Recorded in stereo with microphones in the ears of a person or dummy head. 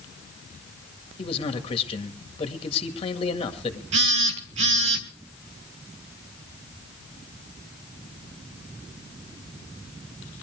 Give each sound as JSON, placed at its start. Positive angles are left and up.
{"t": 1.2, "sound": "a man speaking", "side_deg": 35, "distance_m": 1.9}
{"t": 3.9, "sound": "a phone buzzing", "side_deg": -45, "distance_m": 1.3}